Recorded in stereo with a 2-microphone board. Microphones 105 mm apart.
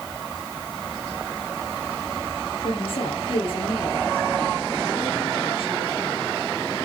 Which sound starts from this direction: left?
A woman speaking, at 2.6 s.